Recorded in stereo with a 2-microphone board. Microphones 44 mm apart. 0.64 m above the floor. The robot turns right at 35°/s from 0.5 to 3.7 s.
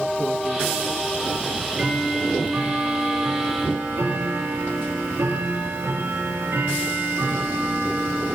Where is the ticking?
165° right, 4 m; by 8.4 s 85° right, 4 m.